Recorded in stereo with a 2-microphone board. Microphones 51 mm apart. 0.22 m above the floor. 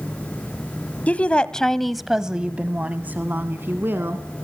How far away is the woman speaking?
About 1.1 m.